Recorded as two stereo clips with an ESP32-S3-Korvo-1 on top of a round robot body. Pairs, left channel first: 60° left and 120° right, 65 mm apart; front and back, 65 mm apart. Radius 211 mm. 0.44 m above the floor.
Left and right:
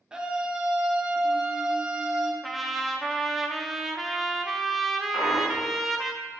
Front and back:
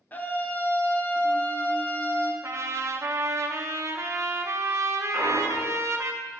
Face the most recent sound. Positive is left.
turn(degrees=85)